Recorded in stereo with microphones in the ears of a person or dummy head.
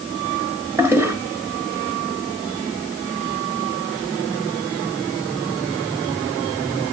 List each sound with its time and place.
0.8 s a toilet flushing: 15° right (ahead or behind), 1.5 m